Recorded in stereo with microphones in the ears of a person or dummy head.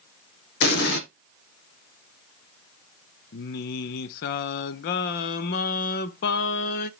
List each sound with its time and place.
0.6 s an explosion: 70° left (ahead or behind), 1.0 m
3.3 s singing: 60° left (ahead or behind), 0.6 m